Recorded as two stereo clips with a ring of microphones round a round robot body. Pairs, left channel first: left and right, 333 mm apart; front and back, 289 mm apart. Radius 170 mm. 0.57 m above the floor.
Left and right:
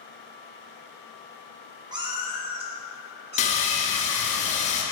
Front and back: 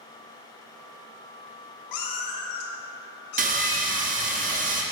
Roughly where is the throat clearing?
No throat clearing in this recording.